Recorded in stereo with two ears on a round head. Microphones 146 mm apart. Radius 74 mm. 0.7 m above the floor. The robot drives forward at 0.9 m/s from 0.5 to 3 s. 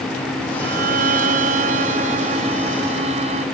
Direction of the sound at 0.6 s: 70° right (ahead or behind).